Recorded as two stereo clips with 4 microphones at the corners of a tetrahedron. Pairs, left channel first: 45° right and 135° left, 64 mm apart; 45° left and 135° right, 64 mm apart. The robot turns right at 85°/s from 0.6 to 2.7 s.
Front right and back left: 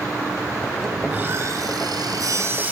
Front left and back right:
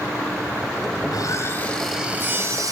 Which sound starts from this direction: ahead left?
Sawing, at 1.0 s.